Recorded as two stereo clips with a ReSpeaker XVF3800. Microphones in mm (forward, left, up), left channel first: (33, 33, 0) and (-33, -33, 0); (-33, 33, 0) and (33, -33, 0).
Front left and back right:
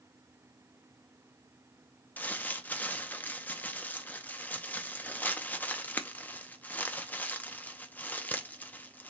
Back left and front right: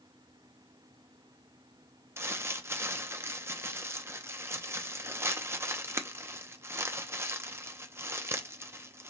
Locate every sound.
2.2 s crumpling: 10° right, 0.5 m